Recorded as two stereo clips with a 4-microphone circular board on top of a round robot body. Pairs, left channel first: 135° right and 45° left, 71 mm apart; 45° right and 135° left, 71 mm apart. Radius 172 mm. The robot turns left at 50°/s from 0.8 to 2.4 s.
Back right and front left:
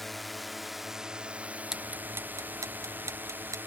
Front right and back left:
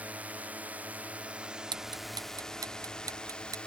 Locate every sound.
0.0 s a drone: 140° left; by 3.7 s 20° left
1.7 s ticking: 130° left; by 3.6 s 95° left